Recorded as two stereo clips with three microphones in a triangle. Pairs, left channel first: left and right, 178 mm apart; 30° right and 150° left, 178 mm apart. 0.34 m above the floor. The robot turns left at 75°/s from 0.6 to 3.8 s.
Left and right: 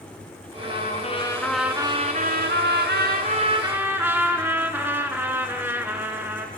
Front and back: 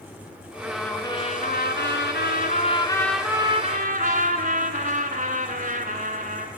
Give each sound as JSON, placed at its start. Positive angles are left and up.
{"t": 0.6, "sound": "a trumpet", "azimuth_deg": 70, "distance_m": 1.3}